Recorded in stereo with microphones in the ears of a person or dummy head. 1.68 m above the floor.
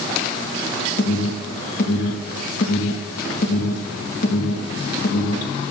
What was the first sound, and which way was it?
An alarm, 50° left (ahead or behind).